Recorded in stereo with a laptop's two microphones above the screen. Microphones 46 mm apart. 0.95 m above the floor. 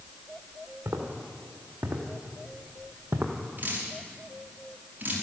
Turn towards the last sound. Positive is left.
turn(degrees=-40)  # may be behind; listen again after turning